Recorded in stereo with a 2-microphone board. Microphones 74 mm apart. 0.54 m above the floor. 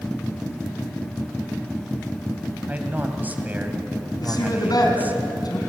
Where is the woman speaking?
60° left (ahead or behind), 4.5 m.